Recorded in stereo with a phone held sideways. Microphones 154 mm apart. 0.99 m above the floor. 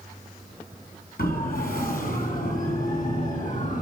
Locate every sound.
1.2 s a siren: 70° left (ahead or behind), 6.5 m; by 3.8 s 55° left (ahead or behind), 7 m